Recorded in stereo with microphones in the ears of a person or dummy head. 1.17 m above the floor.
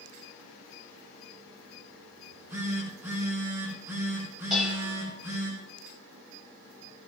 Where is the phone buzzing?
20° right (ahead or behind), 8.5 m.